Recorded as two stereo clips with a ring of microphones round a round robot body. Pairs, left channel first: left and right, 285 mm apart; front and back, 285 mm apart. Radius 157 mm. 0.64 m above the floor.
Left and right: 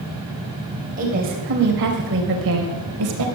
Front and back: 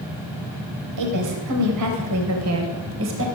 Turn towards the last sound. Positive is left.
turn(degrees=-130)